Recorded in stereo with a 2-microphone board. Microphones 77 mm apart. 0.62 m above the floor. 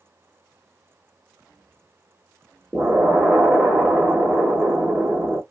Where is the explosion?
10° right (ahead or behind), 0.8 m.